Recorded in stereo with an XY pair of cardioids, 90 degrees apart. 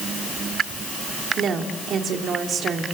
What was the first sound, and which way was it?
A woman speaking, 65° right.